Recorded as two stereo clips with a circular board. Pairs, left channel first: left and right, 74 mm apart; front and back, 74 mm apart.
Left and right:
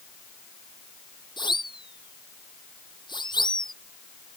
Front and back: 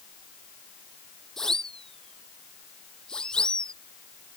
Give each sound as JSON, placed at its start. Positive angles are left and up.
{"t": 1.4, "sound": "a siren", "azimuth_deg": 80}